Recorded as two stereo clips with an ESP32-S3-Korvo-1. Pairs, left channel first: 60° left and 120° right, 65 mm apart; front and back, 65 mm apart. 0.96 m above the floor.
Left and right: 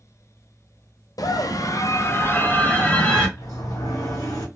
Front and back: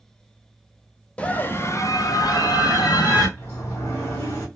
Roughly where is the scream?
Left.